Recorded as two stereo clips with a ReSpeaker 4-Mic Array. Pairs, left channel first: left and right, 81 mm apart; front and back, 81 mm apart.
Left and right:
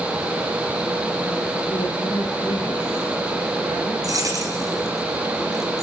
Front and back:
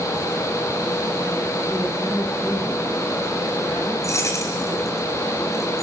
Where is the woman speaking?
70° left, 9 m.